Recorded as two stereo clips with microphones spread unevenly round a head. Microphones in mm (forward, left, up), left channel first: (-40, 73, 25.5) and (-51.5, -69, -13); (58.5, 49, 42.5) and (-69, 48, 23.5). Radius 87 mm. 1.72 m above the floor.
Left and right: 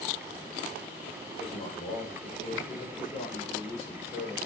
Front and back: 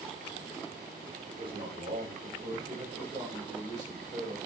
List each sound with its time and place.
1.3 s a man speaking: 135° left, 8.5 m; by 4.4 s 120° left, 8 m